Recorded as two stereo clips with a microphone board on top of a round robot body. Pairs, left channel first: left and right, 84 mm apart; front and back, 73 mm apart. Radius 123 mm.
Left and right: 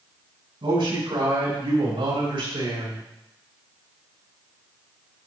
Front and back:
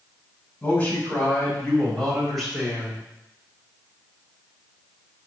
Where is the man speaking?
65° right, 5 m; by 3.0 s 100° right, 3.5 m.